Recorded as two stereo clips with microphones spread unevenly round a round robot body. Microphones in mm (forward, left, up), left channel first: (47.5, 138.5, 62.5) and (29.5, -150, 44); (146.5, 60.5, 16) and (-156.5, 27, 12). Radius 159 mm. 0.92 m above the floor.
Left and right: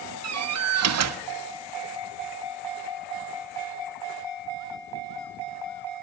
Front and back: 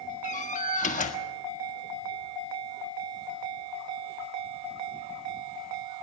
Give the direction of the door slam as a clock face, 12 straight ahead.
2 o'clock.